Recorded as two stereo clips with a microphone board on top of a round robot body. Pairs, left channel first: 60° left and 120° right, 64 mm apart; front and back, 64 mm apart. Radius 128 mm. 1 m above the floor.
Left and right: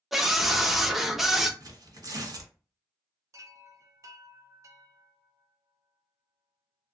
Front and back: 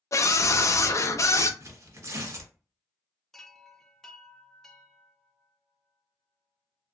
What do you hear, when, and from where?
0.1 s a scream: 35° right, 0.7 m
1.6 s tearing paper: 140° right, 1.4 m
3.3 s a chime: 80° right, 0.6 m